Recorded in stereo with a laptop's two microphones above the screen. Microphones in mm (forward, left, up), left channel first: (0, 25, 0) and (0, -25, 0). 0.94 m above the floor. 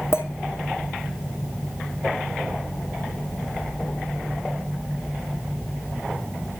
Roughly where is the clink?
Left.